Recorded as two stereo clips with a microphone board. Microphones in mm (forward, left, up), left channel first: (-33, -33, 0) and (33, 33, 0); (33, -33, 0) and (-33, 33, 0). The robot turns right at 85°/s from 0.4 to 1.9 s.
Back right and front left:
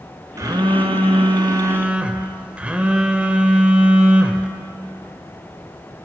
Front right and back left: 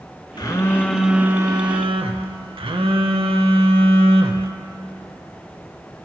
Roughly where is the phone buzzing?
Ahead.